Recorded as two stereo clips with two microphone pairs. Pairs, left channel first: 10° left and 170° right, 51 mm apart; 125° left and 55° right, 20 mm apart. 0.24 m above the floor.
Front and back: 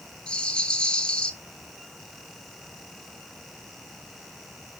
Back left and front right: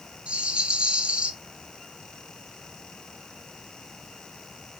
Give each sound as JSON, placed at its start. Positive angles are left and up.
{"t": 0.3, "sound": "a rattle", "azimuth_deg": -60, "distance_m": 0.9}